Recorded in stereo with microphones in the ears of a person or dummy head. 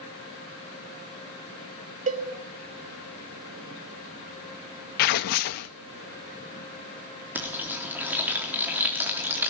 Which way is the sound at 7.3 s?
10° right (ahead or behind).